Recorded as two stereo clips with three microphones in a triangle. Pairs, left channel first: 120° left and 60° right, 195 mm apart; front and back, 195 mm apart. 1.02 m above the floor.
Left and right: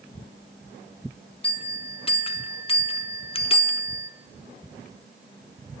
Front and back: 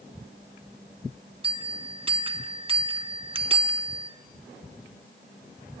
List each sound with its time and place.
1.4 s a bell: 145° left, 0.6 m